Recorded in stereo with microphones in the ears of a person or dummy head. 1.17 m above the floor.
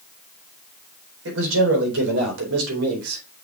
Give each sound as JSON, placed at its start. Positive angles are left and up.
{"t": 1.2, "sound": "a man speaking", "side_deg": -70, "distance_m": 4.0}